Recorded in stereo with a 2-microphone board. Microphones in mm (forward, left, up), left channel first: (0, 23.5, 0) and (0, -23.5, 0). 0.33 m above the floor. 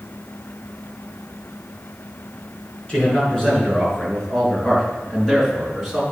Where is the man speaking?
20° left (ahead or behind), 4 m; by 6.0 s centre (ahead or behind), 3.5 m.